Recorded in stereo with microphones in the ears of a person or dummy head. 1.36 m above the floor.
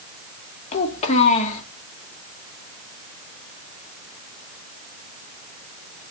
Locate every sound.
0.7 s a child speaking: 35° left (ahead or behind), 1.7 m